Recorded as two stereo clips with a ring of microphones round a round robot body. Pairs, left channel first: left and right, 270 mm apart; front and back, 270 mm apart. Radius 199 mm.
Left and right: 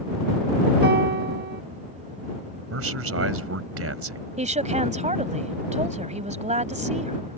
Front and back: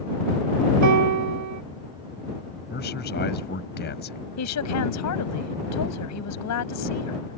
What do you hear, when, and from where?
0.8 s a piano: 150° right
2.7 s a man speaking: 60° right
4.4 s a woman speaking: 25° right